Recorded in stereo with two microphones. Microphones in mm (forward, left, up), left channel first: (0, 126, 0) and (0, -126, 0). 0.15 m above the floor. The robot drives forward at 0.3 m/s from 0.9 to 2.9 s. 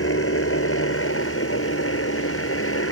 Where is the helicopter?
60° left (ahead or behind).